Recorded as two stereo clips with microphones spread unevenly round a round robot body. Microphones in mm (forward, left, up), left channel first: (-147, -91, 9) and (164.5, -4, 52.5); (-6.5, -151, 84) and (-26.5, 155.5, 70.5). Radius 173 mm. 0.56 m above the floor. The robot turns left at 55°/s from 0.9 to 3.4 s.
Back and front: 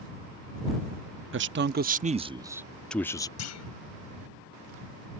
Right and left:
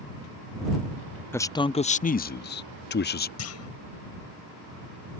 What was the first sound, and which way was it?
A man speaking, 5° right.